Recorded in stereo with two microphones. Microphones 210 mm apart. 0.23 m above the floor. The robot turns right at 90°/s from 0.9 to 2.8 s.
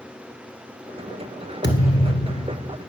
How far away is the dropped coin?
I don't hear a dropped coin.